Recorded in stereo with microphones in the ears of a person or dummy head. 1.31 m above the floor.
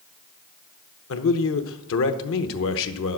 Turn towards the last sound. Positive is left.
turn(degrees=65)  # may be behind; listen again after turning